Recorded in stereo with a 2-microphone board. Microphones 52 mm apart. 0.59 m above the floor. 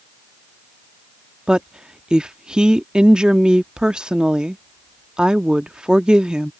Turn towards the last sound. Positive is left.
turn(degrees=-20)  # may be behind; listen again after turning